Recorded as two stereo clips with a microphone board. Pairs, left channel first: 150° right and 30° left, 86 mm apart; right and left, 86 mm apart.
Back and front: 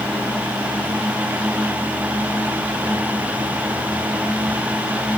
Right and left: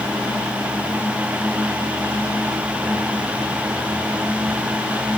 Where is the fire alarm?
No fire alarm in this recording.